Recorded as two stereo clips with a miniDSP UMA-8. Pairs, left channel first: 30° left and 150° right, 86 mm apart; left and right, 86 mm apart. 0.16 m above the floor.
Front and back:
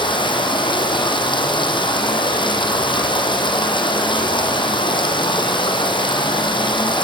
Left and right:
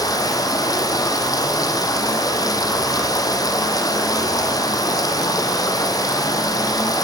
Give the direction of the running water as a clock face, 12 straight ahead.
11 o'clock.